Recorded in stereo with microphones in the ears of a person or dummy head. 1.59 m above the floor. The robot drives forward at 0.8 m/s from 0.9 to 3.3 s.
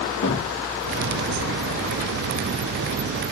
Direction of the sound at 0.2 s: 50° left (ahead or behind).